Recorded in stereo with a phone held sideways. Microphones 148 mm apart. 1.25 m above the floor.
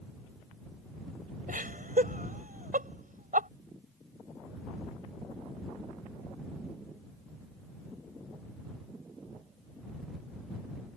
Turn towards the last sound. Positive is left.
turn(degrees=-75)  # may be behind; listen again after turning